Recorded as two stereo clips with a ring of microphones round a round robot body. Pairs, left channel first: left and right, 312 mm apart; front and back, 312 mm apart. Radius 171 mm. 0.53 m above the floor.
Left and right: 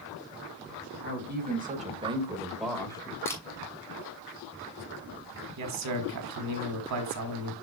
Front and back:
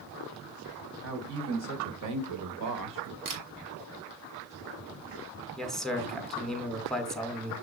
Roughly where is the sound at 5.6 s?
Right.